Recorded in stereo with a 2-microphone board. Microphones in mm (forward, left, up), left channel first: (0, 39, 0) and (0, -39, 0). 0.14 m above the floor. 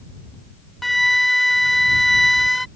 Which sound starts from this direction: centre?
A flute, at 0.8 s.